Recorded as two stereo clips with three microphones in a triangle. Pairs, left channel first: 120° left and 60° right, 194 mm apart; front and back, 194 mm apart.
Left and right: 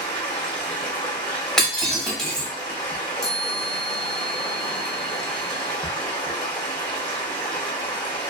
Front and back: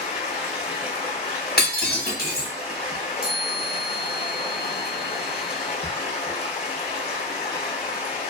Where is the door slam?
I don't hear a door slam.